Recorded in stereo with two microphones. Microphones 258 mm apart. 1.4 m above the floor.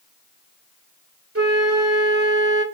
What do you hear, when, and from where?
1.4 s a flute: 60° right (ahead or behind), 2 m